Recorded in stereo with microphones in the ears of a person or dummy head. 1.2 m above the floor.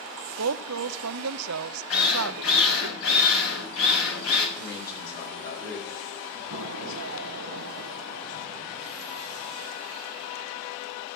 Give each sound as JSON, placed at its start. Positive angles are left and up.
{"t": 0.4, "sound": "a woman speaking", "side_deg": -85, "distance_m": 0.6}
{"t": 1.9, "sound": "a drill", "side_deg": 75, "distance_m": 6.5}
{"t": 4.6, "sound": "a man speaking", "side_deg": 55, "distance_m": 8.0}
{"t": 6.5, "sound": "an explosion", "side_deg": -75, "distance_m": 1.0}